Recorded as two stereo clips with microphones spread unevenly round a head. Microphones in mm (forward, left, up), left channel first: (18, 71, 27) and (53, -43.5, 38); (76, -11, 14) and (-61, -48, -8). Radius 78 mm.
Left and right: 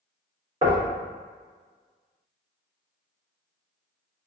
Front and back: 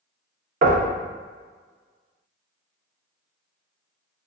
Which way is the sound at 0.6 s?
135° right.